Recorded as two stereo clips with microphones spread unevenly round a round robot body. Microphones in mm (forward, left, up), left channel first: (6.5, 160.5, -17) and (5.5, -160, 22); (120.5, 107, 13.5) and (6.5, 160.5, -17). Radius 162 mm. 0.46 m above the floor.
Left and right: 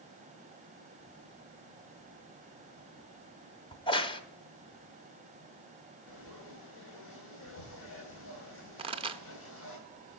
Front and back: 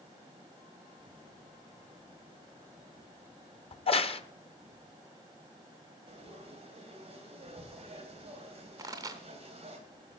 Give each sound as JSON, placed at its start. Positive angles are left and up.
{"t": 3.7, "sound": "a crack", "azimuth_deg": 20, "distance_m": 0.8}
{"t": 6.1, "sound": "frying", "azimuth_deg": 135, "distance_m": 3.0}
{"t": 8.8, "sound": "a pop", "azimuth_deg": -165, "distance_m": 0.6}